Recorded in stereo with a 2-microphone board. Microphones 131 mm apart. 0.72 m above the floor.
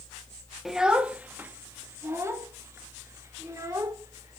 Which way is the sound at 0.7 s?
Centre (ahead or behind).